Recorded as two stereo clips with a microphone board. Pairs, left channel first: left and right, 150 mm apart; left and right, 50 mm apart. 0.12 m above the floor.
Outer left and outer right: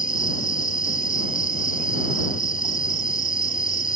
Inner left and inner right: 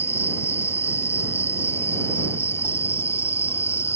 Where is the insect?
60° left (ahead or behind).